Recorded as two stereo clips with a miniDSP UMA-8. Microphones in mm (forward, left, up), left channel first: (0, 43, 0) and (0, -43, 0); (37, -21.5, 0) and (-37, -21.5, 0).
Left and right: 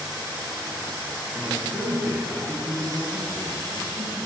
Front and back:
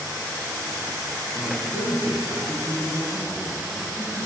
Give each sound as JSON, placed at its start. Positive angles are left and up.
{"t": 1.4, "sound": "a man speaking", "azimuth_deg": -130, "distance_m": 1.4}